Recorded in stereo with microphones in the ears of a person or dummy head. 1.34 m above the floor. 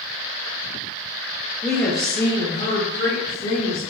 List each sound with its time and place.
1.6 s a woman speaking: 5° right (ahead or behind), 0.5 m; by 3.9 s 65° left (ahead or behind), 1.4 m